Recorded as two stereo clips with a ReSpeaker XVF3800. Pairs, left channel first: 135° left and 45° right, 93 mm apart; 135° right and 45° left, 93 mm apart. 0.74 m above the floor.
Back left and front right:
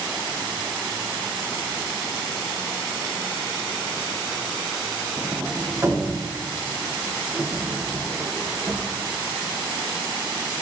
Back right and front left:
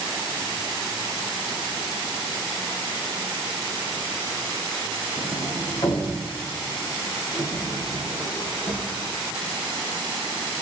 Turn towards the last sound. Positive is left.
turn(degrees=-105)